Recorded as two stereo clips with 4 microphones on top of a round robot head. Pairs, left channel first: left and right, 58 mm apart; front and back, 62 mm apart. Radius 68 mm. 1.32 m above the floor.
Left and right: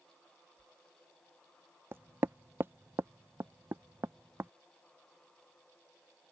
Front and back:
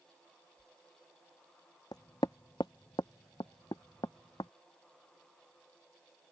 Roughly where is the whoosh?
Right.